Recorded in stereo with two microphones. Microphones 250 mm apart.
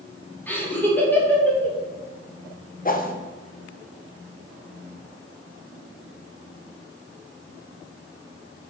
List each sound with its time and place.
0.5 s laughter: 5° left (ahead or behind), 1.8 m
2.9 s a whoosh: 35° left (ahead or behind), 0.7 m